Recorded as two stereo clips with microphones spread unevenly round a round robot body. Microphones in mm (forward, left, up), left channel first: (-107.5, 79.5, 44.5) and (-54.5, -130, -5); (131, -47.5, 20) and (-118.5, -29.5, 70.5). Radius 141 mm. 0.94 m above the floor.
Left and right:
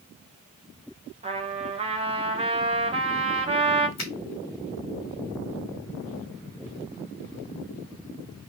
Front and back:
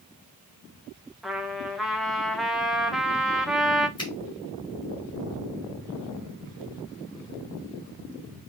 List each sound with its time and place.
1.2 s a trumpet: 80° right, 1.0 m
4.0 s a finger snap: 70° left, 1.6 m